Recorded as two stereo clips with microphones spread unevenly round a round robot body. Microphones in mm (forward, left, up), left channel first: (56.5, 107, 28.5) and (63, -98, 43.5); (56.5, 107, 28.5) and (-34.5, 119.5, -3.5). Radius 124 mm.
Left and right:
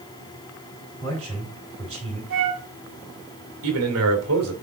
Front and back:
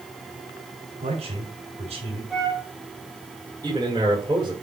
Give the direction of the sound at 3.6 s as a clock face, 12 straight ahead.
4 o'clock.